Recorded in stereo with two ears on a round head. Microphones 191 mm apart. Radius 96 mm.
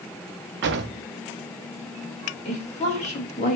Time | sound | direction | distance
0.6 | a drawer | 50° right (ahead or behind) | 0.6 m
2.5 | a woman speaking | 30° left (ahead or behind) | 1.5 m